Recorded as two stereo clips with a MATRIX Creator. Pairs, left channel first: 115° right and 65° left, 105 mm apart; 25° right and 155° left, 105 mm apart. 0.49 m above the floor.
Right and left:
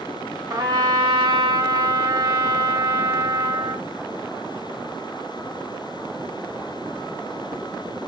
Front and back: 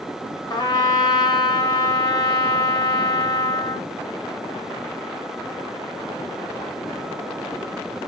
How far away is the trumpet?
About 1.9 m.